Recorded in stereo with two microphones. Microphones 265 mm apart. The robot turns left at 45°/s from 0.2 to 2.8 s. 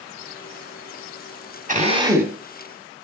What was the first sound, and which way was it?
A drill, 145° right.